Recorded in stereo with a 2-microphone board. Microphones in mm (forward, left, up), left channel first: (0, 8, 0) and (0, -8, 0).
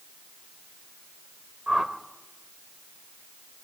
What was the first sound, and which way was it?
A whoosh, 40° right (ahead or behind).